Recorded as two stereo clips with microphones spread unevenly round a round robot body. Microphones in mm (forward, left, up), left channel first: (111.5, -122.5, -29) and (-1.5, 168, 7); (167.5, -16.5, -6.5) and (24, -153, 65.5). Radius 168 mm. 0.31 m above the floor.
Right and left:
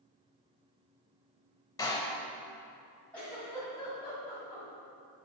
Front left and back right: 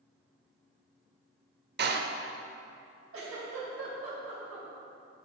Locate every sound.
1.8 s a door slam: 120° right, 0.6 m
3.1 s a giggle: 150° right, 2 m